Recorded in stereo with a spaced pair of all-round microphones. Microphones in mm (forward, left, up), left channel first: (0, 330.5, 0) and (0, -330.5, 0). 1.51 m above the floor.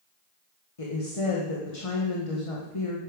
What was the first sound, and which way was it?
A woman speaking, 50° left (ahead or behind).